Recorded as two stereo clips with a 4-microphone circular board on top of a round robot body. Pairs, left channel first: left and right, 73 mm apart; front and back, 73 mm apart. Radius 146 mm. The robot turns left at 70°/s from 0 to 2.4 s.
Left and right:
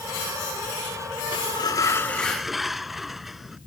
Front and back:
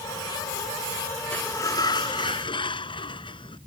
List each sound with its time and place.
1.3 s a sliding door: 75° left; by 3.6 s 5° right